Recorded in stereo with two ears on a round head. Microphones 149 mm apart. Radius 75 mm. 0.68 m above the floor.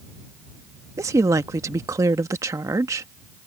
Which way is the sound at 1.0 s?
20° right (ahead or behind).